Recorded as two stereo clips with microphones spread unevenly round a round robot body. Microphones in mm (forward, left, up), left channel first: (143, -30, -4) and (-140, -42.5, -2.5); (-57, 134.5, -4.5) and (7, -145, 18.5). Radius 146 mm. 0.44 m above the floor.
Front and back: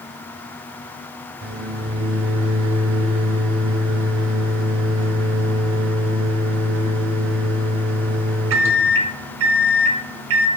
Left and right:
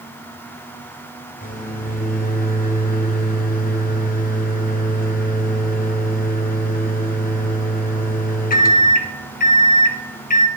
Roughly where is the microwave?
Behind left.